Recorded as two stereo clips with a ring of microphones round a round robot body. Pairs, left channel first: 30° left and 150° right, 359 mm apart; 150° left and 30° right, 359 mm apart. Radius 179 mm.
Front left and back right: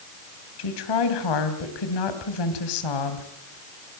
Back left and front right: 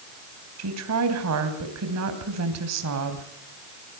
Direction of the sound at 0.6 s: 15° left.